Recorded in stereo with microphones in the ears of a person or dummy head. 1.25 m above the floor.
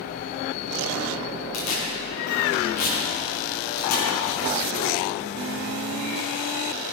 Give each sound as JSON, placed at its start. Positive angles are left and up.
{"t": 1.5, "sound": "tearing paper", "side_deg": 80, "distance_m": 3.0}